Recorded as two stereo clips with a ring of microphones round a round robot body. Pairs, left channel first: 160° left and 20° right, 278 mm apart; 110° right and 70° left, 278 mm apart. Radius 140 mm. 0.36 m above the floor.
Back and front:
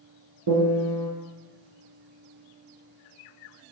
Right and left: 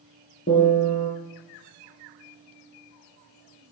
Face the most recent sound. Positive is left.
turn(degrees=-50)